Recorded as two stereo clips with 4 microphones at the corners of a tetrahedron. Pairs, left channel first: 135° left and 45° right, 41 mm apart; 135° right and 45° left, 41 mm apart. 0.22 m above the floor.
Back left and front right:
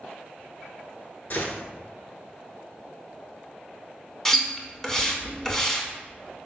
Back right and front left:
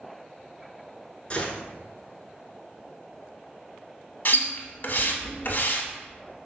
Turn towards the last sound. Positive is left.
turn(degrees=-150)